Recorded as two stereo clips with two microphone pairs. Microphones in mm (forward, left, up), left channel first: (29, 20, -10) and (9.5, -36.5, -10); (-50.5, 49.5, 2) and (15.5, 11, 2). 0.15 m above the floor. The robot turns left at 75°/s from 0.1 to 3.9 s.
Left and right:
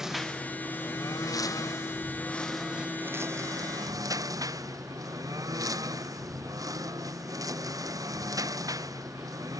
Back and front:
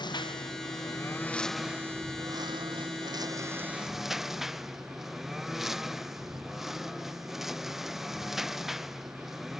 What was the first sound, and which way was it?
A lawn mower, 170° left.